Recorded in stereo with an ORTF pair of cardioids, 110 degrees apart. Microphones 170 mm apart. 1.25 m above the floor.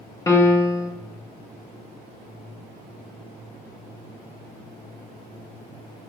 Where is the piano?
15° left, 0.5 m.